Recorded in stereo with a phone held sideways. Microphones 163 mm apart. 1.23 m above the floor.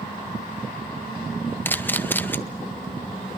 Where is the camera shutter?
10° left (ahead or behind), 0.9 m.